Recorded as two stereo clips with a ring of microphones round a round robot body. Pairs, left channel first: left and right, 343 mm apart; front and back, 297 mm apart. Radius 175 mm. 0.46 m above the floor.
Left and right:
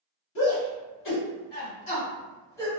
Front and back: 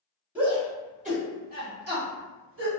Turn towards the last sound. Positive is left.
turn(degrees=170)